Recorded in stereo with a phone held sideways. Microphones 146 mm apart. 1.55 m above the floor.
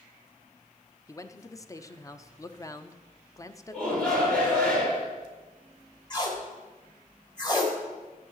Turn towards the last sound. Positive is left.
turn(degrees=30)  # may be behind; listen again after turning